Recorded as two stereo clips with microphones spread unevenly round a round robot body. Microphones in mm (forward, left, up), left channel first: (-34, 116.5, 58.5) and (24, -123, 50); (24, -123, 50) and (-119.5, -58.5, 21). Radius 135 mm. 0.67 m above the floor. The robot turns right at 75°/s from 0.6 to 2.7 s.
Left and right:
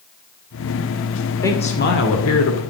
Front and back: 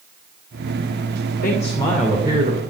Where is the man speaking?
25° left, 2.5 m; by 2.6 s 110° left, 2.5 m.